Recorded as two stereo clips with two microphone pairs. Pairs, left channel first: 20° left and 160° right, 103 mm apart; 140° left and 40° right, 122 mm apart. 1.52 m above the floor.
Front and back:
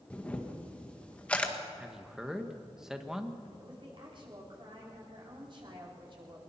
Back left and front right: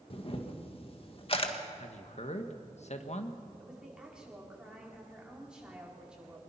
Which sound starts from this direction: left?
A camera shutter, at 0.1 s.